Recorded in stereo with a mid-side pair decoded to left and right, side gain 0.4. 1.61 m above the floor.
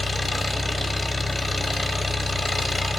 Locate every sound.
0.0 s an engine running: 15° left, 0.8 m